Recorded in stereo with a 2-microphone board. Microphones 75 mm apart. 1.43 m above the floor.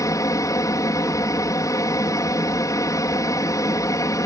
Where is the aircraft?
50° left (ahead or behind).